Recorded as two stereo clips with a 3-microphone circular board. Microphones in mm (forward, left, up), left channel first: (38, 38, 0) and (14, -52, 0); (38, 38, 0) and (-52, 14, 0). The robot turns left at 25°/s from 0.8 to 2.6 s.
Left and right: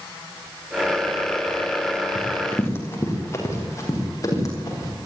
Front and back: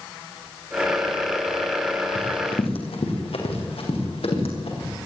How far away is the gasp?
No gasp in this recording.